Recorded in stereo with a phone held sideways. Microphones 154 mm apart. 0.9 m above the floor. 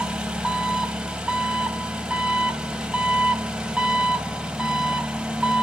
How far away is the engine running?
About 0.8 m.